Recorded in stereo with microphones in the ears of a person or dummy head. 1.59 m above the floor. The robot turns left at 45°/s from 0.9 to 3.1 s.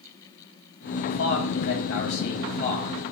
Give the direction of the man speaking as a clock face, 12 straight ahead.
8 o'clock.